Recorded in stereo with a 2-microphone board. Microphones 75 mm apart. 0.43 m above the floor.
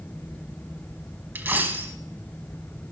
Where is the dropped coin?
25° right (ahead or behind), 1.0 m.